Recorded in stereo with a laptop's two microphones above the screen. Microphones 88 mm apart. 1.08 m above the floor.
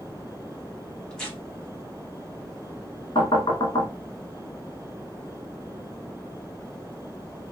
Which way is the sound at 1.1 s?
10° left (ahead or behind).